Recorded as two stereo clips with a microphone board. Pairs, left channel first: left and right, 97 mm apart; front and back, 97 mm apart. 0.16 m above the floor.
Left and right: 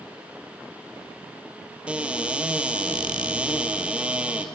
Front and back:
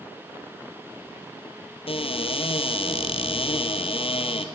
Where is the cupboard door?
10° right, 1.5 m.